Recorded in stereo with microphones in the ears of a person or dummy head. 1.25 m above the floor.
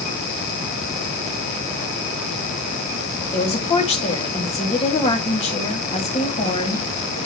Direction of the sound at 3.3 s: 30° left (ahead or behind).